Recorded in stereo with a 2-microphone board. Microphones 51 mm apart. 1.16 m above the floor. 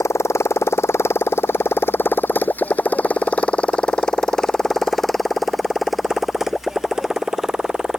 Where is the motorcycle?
65° left (ahead or behind); by 8.0 s 15° right (ahead or behind).